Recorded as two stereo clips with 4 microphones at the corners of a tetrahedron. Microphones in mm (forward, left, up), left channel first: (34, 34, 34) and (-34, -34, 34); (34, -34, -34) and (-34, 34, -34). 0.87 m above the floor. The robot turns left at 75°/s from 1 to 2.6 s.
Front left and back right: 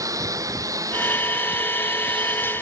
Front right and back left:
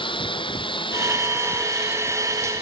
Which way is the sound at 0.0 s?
80° right.